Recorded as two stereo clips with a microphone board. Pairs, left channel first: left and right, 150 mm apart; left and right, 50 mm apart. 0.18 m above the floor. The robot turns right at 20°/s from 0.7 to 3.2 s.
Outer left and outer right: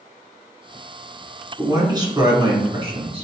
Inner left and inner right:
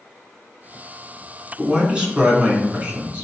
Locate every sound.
1.6 s a man speaking: 150° right, 1.5 m; by 3.2 s 120° right, 1.5 m